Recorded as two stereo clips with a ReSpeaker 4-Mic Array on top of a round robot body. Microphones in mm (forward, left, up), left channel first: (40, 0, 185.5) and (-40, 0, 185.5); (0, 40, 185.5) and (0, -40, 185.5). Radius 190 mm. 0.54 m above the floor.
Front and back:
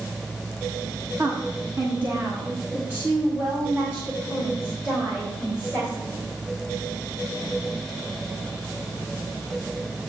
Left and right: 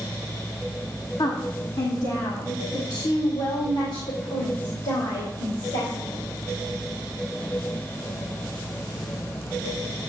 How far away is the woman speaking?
About 1.4 m.